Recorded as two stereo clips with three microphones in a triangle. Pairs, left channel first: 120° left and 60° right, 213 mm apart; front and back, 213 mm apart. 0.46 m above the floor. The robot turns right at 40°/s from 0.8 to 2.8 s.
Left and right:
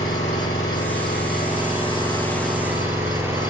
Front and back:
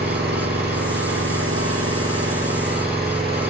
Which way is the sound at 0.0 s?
140° left.